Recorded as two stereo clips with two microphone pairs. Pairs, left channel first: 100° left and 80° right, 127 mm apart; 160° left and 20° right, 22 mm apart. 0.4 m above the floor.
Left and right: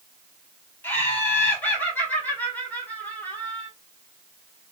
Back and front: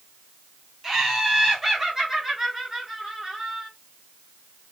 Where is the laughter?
40° left, 1.4 m.